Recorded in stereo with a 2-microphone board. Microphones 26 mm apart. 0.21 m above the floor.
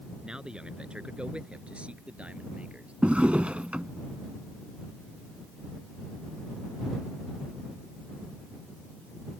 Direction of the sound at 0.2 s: 35° right (ahead or behind).